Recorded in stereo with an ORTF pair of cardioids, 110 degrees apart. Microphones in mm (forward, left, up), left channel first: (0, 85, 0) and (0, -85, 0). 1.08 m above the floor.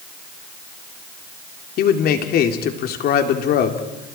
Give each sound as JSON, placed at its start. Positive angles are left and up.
{"t": 1.8, "sound": "a man speaking", "azimuth_deg": 65, "distance_m": 3.0}